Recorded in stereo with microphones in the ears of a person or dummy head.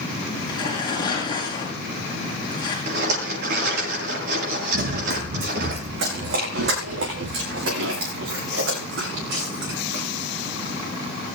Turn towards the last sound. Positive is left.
turn(degrees=-80)